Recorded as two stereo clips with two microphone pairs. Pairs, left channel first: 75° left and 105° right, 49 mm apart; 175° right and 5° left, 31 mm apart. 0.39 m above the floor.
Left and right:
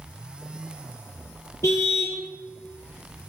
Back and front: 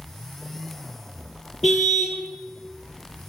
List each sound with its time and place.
1.6 s a car horn: 90° left, 5 m